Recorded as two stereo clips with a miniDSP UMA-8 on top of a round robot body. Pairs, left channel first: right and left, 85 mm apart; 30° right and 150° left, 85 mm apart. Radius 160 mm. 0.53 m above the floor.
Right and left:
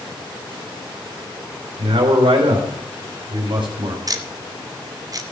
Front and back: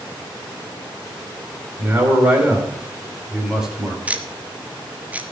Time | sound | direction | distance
1.8 | a man speaking | 85° left | 3.5 m
4.1 | ticking | 85° left | 1.5 m